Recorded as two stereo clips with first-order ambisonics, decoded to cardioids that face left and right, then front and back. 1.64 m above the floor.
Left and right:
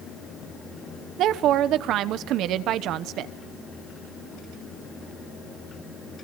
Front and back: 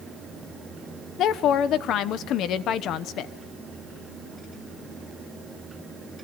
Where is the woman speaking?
45° right, 0.9 m.